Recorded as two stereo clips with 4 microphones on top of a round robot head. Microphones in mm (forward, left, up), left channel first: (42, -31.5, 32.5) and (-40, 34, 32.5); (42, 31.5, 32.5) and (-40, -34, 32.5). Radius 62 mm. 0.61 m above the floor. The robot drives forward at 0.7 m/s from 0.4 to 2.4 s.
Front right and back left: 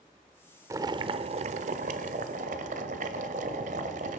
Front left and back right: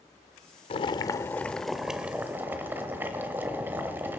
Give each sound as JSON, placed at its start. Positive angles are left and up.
{"t": 0.7, "sound": "boiling", "azimuth_deg": 80, "distance_m": 0.7}